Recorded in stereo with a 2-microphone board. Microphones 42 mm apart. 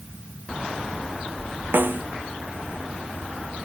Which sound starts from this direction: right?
A snare drum, at 1.7 s.